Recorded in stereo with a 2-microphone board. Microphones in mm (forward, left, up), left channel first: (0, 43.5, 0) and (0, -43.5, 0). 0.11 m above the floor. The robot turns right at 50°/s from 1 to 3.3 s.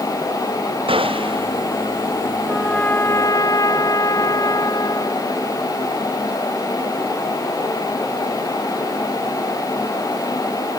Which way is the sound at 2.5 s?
Straight ahead.